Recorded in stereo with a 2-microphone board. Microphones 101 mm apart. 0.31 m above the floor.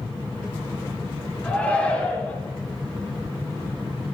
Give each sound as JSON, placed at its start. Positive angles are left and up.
{"t": 1.4, "sound": "a shout", "side_deg": 15, "distance_m": 4.5}